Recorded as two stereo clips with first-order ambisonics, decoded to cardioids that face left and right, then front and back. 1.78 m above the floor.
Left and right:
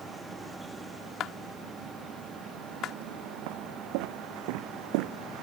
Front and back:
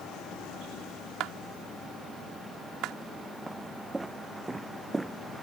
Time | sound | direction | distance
1.2 | a clap | 140° left | ?
3.5 | footsteps | 95° right | ?